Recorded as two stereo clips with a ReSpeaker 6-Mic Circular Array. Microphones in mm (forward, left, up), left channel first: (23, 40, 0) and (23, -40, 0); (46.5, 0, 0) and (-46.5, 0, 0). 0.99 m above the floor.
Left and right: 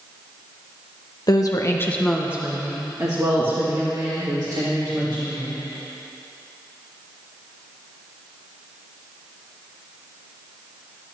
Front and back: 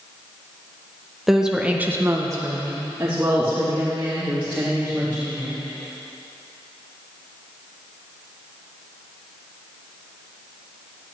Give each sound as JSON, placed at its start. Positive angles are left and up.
{"t": 1.3, "sound": "a woman speaking", "azimuth_deg": 95, "distance_m": 1.1}